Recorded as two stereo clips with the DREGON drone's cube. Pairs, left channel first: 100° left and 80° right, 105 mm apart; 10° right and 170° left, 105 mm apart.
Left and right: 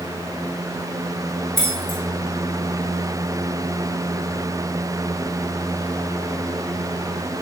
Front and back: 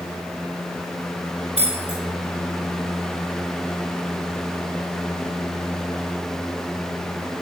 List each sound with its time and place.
1.6 s keys jangling: 15° left, 3 m